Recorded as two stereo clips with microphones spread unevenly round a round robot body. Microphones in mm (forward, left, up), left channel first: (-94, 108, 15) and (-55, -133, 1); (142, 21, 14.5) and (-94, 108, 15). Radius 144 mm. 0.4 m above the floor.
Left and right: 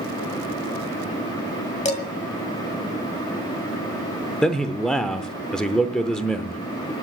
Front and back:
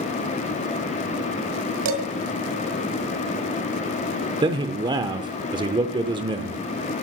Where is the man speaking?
170° right, 0.8 m.